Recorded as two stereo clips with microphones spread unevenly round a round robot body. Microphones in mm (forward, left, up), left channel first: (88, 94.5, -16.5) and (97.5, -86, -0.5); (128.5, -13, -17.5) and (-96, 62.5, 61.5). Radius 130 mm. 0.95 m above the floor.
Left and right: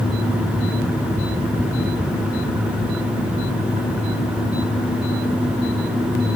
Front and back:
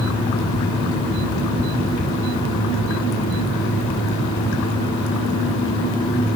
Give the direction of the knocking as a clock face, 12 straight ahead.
I don't hear knocking.